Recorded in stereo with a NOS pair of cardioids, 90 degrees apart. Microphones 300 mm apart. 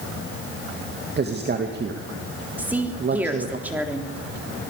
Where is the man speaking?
35° right, 2.5 m.